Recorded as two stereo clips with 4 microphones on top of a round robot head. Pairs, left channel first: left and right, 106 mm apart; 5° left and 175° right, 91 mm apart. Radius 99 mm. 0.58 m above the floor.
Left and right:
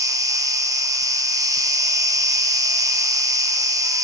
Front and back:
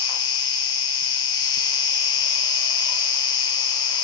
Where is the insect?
35° right, 1.7 m.